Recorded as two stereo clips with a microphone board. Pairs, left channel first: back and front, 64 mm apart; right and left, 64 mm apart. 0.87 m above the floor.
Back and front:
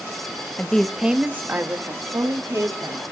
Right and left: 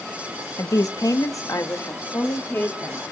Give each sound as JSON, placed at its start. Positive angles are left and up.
{"t": 0.6, "sound": "a woman speaking", "azimuth_deg": -110, "distance_m": 0.6}